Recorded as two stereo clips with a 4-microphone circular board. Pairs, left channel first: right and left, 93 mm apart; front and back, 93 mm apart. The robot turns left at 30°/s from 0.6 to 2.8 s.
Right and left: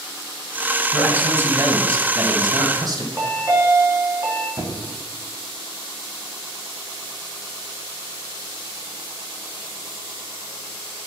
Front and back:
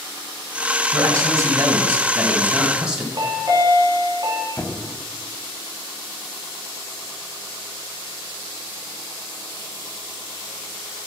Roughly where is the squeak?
Ahead left.